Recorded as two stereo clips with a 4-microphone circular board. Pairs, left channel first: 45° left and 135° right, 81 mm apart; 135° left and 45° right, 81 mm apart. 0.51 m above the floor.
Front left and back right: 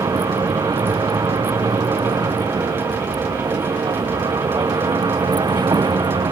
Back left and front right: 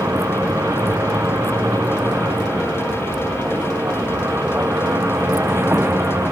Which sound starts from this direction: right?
A vehicle, at 0.0 s.